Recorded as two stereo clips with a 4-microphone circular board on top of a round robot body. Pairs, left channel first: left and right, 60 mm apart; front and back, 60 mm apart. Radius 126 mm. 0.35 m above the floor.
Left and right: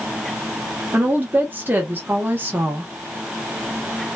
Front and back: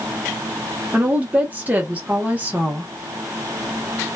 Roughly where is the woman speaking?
Behind right.